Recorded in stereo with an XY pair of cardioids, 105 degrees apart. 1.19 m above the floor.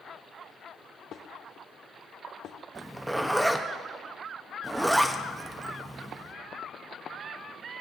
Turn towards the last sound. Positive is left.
turn(degrees=-10)